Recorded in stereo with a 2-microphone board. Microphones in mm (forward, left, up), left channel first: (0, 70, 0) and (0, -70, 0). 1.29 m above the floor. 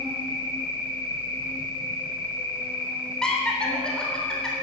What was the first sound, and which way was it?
An insect, 40° right (ahead or behind).